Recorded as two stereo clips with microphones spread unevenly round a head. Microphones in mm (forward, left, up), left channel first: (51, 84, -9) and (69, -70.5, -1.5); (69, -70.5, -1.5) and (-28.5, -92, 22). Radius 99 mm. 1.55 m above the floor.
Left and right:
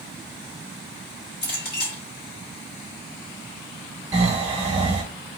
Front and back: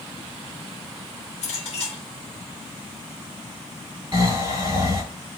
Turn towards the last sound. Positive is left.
turn(degrees=-150)